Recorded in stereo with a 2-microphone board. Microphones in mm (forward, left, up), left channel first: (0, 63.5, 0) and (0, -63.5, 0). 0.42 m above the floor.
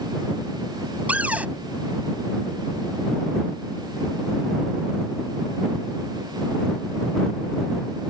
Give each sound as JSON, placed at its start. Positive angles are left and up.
{"t": 1.1, "sound": "a cupboard door", "side_deg": -10}